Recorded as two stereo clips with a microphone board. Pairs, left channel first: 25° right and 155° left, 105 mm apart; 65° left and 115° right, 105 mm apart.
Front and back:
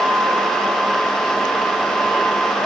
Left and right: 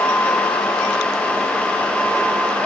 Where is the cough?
I don't hear a cough.